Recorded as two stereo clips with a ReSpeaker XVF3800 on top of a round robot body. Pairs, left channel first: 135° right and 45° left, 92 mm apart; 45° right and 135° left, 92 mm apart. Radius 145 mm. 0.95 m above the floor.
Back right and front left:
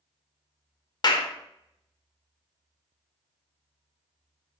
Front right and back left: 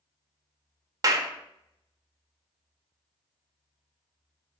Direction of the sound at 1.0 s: 175° right.